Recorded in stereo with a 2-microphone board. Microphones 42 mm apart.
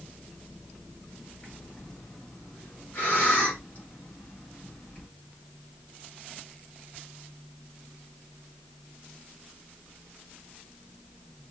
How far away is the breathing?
About 2.5 m.